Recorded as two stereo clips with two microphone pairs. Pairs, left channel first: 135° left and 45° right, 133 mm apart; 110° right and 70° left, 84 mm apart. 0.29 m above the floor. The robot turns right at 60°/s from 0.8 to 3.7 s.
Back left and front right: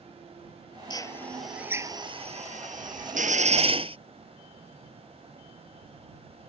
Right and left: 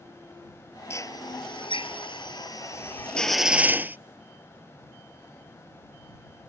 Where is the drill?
165° right; by 4.0 s straight ahead.